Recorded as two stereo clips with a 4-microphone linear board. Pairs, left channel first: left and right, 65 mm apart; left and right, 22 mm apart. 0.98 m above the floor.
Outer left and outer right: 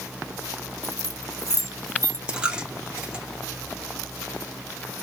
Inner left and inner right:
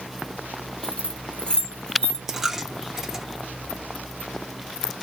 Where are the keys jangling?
55° left (ahead or behind), 1.1 m.